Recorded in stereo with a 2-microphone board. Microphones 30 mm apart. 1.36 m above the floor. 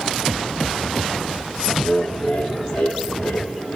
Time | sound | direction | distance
1.8 | laughter | 55° left (ahead or behind) | 2.5 m